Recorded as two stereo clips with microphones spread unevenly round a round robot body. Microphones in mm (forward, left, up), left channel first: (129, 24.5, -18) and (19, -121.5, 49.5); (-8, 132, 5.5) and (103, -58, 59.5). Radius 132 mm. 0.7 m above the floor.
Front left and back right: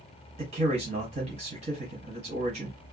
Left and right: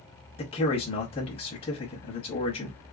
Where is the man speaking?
160° left, 0.8 m.